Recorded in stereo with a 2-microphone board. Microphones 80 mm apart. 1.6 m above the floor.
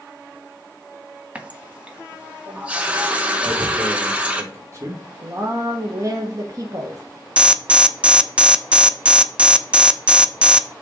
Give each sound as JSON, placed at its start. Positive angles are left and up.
{"t": 1.4, "sound": "a running tap", "side_deg": -15, "distance_m": 0.9}
{"t": 3.4, "sound": "tearing paper", "side_deg": -40, "distance_m": 2.0}
{"t": 5.2, "sound": "a woman speaking", "side_deg": -45, "distance_m": 1.1}
{"t": 7.4, "sound": "an alarm", "side_deg": -15, "distance_m": 0.5}